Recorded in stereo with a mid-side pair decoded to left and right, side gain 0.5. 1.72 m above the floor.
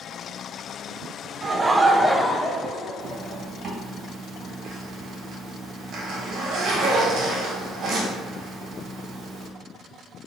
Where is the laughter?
35° right, 0.7 m; by 3.4 s 75° left, 1.0 m.